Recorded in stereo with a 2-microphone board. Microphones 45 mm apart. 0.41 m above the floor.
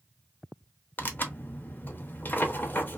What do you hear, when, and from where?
1.0 s tearing paper: 45° left (ahead or behind), 0.6 m